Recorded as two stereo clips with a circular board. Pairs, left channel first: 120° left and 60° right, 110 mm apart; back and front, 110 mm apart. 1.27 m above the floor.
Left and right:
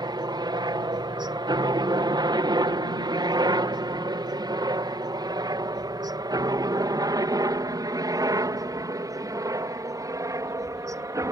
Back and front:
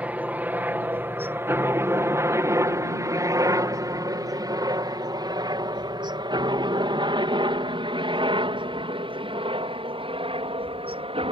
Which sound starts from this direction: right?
A helicopter, at 0.0 s.